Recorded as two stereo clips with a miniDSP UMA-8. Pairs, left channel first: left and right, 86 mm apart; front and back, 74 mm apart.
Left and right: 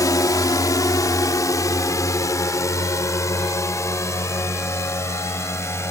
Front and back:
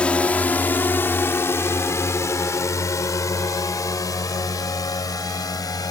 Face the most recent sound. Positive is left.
turn(degrees=35)